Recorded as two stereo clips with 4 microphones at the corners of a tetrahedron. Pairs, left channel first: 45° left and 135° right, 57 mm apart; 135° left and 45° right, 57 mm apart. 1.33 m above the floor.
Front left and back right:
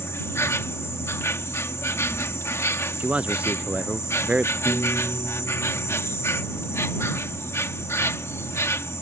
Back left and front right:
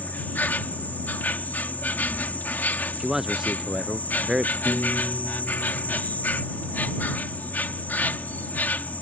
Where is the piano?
20° left.